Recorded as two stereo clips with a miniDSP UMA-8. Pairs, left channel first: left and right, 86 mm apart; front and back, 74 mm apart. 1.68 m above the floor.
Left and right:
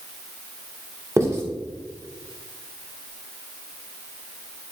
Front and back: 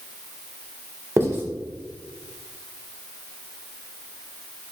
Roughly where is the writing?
Behind right.